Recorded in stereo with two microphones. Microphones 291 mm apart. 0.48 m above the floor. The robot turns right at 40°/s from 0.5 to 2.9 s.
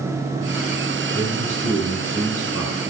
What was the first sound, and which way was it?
A man speaking, 110° right.